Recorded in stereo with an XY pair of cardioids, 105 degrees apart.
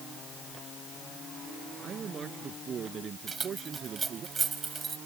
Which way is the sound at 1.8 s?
50° right.